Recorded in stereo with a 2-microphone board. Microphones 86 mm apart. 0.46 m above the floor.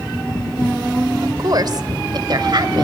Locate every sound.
1.2 s a woman speaking: 50° right (ahead or behind), 1.4 m; by 2.8 s 60° right (ahead or behind), 2 m